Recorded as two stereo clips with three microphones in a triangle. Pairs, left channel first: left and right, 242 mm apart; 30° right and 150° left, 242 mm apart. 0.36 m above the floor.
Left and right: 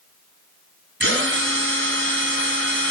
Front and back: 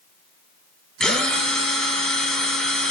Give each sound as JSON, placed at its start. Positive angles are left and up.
{"t": 1.0, "sound": "a drill", "azimuth_deg": -115, "distance_m": 2.0}